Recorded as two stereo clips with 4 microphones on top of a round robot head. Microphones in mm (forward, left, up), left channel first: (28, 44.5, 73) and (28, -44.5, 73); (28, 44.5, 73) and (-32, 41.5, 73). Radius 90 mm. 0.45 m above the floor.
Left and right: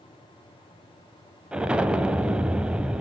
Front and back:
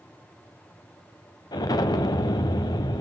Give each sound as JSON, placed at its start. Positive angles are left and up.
{"t": 1.5, "sound": "an explosion", "azimuth_deg": -10, "distance_m": 0.8}